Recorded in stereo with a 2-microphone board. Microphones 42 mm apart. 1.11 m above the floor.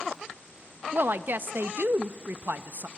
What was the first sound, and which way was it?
A woman speaking, 50° right (ahead or behind).